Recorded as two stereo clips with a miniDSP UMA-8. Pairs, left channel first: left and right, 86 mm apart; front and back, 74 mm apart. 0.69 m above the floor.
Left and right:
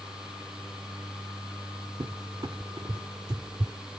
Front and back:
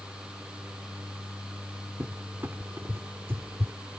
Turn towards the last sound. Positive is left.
turn(degrees=-125)